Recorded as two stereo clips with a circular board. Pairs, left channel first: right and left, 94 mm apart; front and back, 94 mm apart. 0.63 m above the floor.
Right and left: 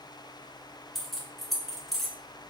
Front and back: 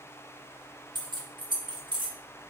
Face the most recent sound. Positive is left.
turn(degrees=-175)